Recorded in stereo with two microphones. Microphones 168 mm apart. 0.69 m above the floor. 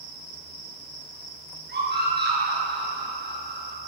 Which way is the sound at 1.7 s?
85° right.